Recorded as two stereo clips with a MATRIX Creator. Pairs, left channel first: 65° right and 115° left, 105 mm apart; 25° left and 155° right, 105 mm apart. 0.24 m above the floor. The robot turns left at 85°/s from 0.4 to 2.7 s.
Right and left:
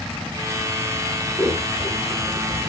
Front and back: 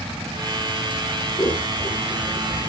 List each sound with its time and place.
1.4 s scissors: 35° left, 1.5 m; by 2.7 s 75° right, 1.5 m